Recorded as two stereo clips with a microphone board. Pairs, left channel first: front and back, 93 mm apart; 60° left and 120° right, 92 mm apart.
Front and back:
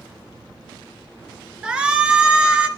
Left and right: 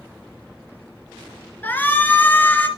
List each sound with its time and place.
1.6 s a shout: 110° left, 1.7 m